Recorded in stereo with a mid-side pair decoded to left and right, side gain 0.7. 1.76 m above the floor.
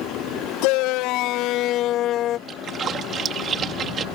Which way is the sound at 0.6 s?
70° left.